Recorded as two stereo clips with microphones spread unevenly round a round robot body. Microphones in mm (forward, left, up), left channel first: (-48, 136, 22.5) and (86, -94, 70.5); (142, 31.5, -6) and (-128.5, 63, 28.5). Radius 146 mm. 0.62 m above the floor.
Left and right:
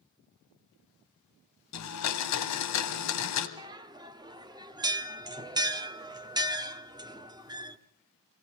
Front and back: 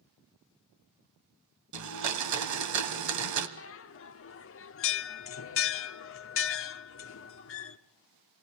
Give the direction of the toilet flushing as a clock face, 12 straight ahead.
I don't hear a toilet flushing.